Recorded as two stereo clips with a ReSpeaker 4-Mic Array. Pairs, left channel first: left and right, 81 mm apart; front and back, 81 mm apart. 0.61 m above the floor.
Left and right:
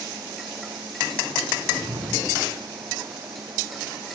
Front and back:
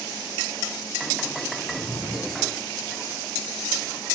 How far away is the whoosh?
About 4 m.